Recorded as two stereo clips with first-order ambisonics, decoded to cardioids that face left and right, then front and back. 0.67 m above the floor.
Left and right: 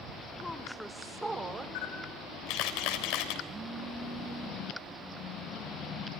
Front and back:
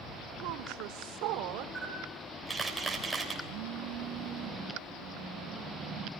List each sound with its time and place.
0.4 s a woman speaking: 170° left, 2.5 m; by 1.6 s 160° right, 2.5 m
1.8 s a camera shutter: 95° left, 3.5 m
3.5 s a phone buzzing: 155° right, 2 m